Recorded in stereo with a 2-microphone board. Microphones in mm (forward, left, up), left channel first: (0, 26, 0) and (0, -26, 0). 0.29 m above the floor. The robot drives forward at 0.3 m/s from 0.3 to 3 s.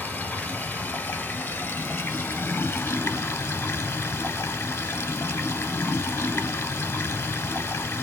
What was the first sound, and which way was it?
Running water, 35° left (ahead or behind).